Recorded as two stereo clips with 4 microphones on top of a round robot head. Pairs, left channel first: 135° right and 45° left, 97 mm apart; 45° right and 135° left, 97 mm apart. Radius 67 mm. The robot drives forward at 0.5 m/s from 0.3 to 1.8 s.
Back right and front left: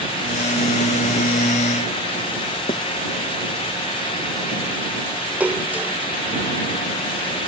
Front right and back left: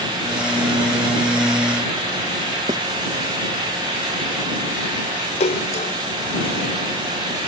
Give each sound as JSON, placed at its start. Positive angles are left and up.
{"t": 2.7, "sound": "writing", "azimuth_deg": -175}
{"t": 5.4, "sound": "a splash", "azimuth_deg": -30}